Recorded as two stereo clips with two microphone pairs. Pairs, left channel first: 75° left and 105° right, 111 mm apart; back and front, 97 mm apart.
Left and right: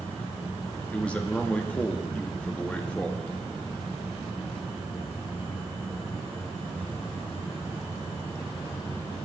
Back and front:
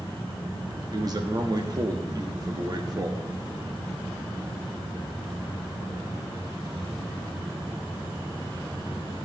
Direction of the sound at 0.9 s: 5° left.